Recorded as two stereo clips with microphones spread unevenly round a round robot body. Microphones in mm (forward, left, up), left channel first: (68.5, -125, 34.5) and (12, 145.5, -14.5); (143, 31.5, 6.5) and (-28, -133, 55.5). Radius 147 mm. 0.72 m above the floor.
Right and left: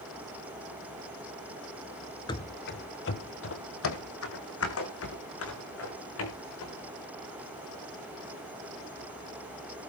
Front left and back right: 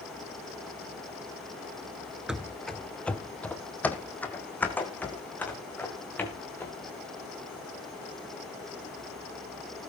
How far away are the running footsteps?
About 0.7 m.